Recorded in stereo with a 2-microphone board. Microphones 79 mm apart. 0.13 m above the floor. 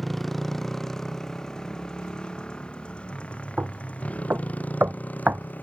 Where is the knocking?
25° right (ahead or behind).